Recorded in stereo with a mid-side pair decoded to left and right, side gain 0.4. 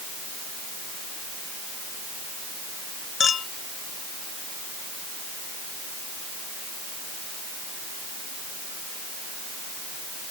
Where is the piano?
I don't hear a piano.